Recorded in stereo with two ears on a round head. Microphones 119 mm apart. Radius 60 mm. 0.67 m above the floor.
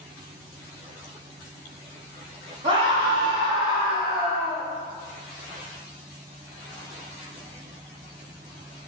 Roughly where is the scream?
Right.